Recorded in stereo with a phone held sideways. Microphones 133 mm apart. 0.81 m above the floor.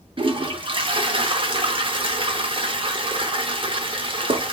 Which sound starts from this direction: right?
A toilet flushing, at 0.2 s.